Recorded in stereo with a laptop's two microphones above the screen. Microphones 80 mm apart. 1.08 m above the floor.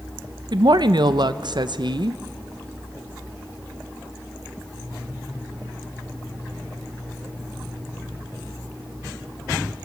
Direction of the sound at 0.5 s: 65° right (ahead or behind).